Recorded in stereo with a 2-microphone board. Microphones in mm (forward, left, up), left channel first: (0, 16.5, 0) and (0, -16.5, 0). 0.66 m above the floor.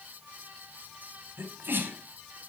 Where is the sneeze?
70° right (ahead or behind), 4 m.